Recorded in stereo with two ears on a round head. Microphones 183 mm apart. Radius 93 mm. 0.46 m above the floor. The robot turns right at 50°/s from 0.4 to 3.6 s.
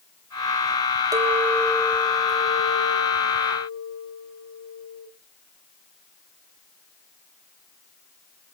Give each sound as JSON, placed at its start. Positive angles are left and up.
{"t": 1.1, "sound": "a clink", "azimuth_deg": -20, "distance_m": 1.7}